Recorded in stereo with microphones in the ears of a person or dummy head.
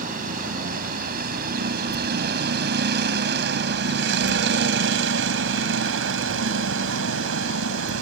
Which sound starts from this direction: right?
A vehicle, at 0.0 s.